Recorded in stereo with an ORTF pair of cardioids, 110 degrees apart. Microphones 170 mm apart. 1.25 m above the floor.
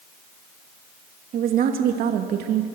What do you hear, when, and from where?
1.3 s a woman speaking: 60° right, 2.5 m; by 2.7 s 80° right, 1.9 m